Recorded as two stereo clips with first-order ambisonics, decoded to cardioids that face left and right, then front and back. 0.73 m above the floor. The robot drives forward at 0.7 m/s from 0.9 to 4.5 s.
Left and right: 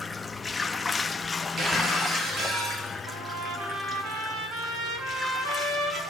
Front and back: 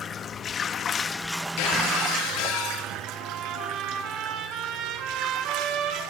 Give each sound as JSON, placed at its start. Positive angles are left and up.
{"t": 0.0, "sound": "running water", "azimuth_deg": 25, "distance_m": 0.8}
{"t": 1.6, "sound": "breaking glass", "azimuth_deg": -25, "distance_m": 9.5}
{"t": 3.1, "sound": "a trumpet", "azimuth_deg": -130, "distance_m": 6.5}